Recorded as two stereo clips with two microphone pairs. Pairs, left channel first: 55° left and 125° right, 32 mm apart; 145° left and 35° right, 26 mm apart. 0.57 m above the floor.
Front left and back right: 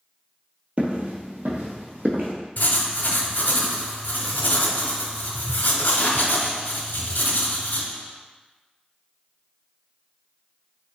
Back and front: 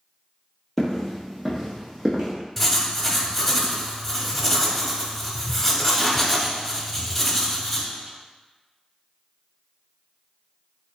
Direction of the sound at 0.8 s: 140° right.